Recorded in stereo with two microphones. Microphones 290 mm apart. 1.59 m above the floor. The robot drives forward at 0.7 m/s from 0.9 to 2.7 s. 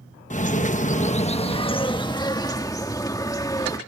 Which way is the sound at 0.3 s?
25° left (ahead or behind).